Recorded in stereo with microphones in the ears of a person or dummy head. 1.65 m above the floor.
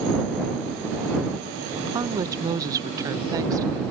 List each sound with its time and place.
1.8 s a woman speaking: 15° right (ahead or behind)